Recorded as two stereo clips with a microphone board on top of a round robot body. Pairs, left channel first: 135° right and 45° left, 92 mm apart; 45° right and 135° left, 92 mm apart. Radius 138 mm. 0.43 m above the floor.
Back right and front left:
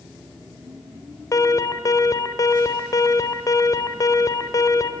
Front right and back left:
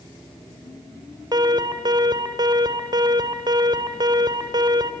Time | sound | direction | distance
1.3 | an alarm | 175° left | 2 m